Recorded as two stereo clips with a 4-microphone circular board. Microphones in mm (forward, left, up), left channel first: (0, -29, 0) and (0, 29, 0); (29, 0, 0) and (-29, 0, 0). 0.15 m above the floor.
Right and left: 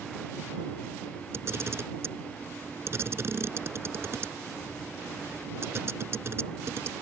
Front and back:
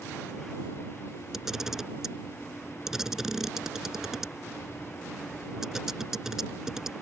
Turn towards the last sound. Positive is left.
turn(degrees=100)